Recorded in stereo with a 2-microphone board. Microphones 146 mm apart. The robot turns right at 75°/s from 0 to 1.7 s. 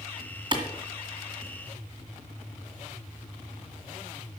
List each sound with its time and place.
0.5 s a clap: 35° right (ahead or behind), 2.0 m; by 0.6 s 40° right (ahead or behind), 2.0 m